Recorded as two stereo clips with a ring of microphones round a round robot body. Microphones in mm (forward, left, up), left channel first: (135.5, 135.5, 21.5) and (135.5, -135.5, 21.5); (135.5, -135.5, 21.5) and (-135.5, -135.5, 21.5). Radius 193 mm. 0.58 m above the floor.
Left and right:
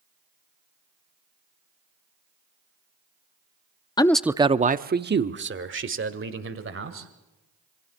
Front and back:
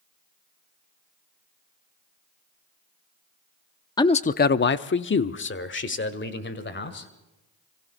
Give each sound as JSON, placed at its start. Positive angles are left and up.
{"t": 4.0, "sound": "a man speaking", "azimuth_deg": 45, "distance_m": 0.6}